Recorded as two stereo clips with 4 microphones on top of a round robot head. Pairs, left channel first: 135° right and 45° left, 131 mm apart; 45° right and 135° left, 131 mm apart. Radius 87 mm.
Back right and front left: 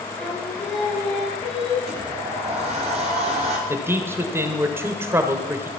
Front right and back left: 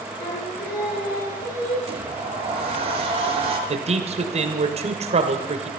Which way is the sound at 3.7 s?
115° left.